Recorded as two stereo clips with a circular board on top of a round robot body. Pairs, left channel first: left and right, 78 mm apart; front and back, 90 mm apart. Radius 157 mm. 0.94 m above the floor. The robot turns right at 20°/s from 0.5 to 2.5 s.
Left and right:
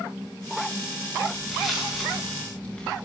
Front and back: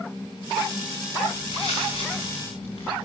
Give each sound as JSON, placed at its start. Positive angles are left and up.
{"t": 1.3, "sound": "footsteps", "azimuth_deg": -5, "distance_m": 10.0}